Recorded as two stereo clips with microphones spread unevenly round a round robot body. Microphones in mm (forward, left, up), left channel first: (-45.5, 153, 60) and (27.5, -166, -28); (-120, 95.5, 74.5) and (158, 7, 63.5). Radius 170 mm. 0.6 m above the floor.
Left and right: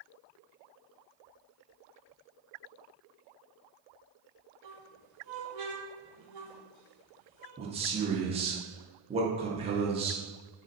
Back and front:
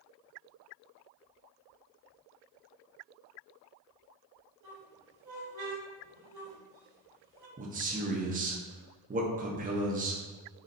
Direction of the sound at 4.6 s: 55° right.